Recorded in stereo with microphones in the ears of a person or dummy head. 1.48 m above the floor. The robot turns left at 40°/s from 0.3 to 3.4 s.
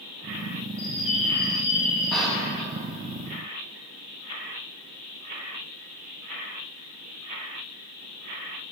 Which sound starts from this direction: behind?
A bird, at 0.8 s.